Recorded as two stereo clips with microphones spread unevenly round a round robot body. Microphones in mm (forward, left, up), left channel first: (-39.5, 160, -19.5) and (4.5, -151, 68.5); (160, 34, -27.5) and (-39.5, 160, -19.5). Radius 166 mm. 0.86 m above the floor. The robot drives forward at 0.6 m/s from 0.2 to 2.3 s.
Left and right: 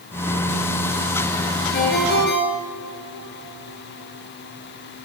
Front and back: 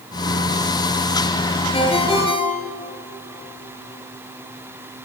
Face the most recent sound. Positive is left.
turn(degrees=35)